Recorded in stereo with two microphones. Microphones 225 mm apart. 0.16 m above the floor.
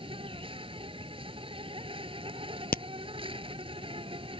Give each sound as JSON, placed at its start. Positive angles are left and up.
{"t": 0.0, "sound": "an insect", "side_deg": -25}
{"t": 2.7, "sound": "a crack", "side_deg": 45}